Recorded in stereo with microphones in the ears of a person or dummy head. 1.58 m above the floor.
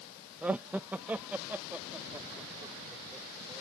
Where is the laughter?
Centre (ahead or behind); by 3.6 s 5° right (ahead or behind).